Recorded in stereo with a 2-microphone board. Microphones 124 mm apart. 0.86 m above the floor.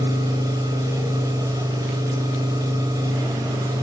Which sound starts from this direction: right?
An engine running, at 0.0 s.